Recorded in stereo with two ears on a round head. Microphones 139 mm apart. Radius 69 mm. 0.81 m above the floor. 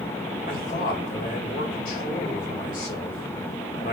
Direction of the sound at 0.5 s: 55° left (ahead or behind).